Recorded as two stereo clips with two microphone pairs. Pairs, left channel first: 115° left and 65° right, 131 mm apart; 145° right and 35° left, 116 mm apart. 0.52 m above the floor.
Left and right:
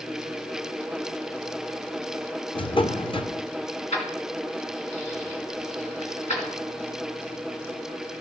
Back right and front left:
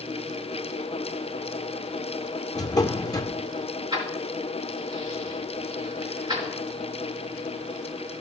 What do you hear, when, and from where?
2.5 s a drawer: 155° left, 0.5 m
3.9 s keys jangling: 85° left, 3.5 m